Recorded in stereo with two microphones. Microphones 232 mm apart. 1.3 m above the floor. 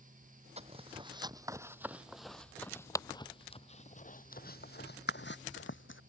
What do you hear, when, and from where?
0.6 s footsteps: 25° right (ahead or behind); by 6.0 s 60° left (ahead or behind)